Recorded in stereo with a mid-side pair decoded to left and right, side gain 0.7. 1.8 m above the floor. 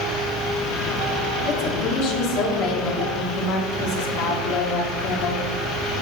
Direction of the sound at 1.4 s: 70° left.